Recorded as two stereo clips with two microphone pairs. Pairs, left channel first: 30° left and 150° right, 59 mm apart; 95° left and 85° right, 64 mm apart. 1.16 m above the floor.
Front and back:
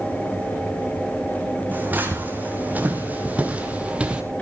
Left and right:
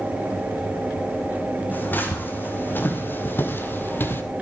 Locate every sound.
1.7 s footsteps: 155° left, 4 m; by 4.2 s 145° left, 2 m